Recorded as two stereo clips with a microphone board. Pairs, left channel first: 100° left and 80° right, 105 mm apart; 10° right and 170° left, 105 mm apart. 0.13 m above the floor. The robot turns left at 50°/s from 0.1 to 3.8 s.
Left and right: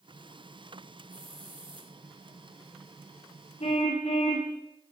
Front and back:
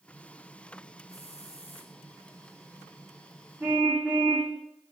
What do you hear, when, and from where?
1.1 s a hiss: 10° right, 6 m; by 1.9 s 50° right, 6 m
3.6 s a car horn: 100° left, 5.5 m; by 4.5 s 90° left, 5.5 m